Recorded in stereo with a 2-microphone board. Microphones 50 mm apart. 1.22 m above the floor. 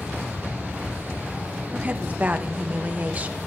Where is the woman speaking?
35° right (ahead or behind), 0.8 m.